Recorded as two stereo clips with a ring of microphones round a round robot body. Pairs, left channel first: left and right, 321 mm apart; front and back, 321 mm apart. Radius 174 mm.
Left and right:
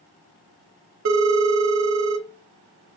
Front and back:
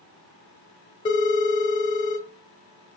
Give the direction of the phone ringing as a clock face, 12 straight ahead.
2 o'clock.